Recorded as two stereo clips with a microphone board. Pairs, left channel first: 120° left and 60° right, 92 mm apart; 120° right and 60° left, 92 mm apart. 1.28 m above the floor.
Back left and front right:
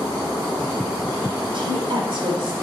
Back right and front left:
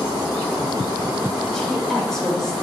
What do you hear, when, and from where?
1.5 s a woman speaking: 35° right, 5 m